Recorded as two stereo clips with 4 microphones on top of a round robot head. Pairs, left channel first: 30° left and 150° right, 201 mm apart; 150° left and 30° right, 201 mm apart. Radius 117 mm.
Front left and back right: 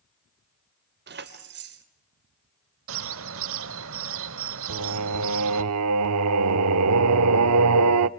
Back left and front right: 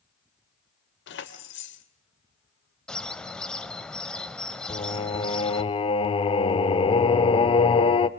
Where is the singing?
145° right, 0.7 m.